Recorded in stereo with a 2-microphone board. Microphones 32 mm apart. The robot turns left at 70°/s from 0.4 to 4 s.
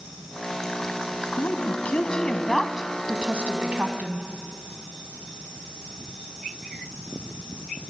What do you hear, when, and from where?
1.4 s a woman speaking: 60° left (ahead or behind), 1.9 m; by 4.3 s 60° right (ahead or behind), 1.9 m